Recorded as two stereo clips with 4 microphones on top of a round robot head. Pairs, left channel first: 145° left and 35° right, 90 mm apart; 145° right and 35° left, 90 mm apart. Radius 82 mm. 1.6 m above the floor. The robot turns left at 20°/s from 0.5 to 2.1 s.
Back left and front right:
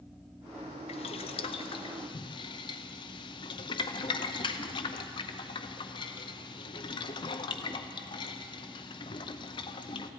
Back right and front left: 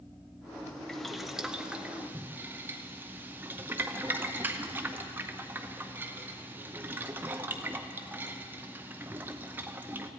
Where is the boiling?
130° left, 0.6 m; by 10.1 s 105° left, 0.6 m.